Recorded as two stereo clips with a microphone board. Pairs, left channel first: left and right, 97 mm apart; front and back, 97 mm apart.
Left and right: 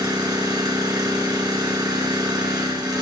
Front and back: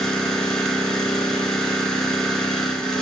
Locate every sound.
0.0 s an engine running: 80° right, 1.4 m